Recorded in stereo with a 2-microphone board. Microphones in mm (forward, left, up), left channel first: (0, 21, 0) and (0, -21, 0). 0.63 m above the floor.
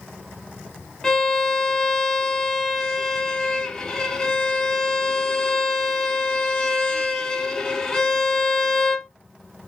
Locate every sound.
1.0 s a violin: 10° left (ahead or behind), 0.9 m